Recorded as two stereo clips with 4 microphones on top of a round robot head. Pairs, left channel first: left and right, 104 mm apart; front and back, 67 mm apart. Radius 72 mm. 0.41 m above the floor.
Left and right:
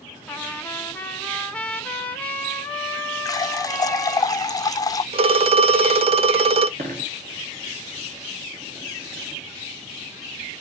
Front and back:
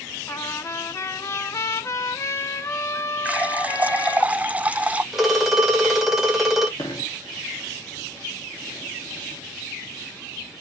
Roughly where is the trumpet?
Ahead.